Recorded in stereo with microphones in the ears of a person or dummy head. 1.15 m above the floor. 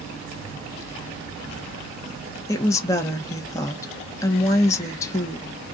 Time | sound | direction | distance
2.5 | a woman speaking | 20° left (ahead or behind) | 0.9 m